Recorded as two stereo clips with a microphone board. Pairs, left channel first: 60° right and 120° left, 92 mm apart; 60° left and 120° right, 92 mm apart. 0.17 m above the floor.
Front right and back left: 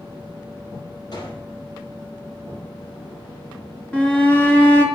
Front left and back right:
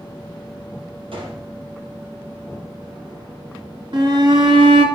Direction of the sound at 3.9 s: 135° right.